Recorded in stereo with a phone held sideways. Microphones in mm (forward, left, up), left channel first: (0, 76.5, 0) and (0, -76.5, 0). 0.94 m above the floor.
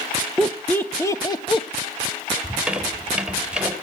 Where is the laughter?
Centre (ahead or behind), 1.1 m; by 1.7 s 35° left (ahead or behind), 1.2 m.